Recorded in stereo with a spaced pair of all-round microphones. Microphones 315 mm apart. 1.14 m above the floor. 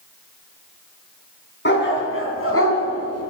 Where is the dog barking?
35° left (ahead or behind), 4 m; by 3.3 s 50° left (ahead or behind), 3.5 m.